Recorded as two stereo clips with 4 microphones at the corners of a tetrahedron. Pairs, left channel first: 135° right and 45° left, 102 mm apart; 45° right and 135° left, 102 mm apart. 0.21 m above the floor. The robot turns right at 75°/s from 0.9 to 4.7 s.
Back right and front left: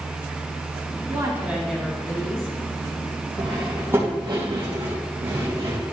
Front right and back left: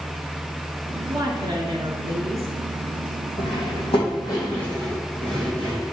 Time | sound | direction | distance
1.1 | a woman speaking | 90° left | 2.5 m
3.4 | cutlery clinking | 65° right | 4 m